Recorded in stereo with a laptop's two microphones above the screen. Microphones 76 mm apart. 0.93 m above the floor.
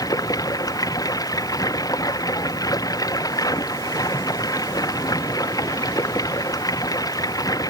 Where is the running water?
55° left (ahead or behind).